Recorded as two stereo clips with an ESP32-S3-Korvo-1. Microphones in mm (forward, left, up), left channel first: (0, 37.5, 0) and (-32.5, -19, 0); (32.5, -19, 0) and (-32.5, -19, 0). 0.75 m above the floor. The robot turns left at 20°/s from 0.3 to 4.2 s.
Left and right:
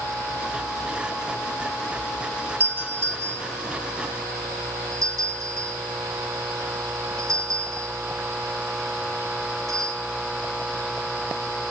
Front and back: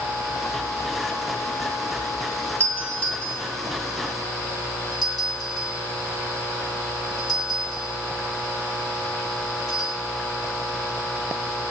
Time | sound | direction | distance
2.6 | a doorbell | 60° right | 7 m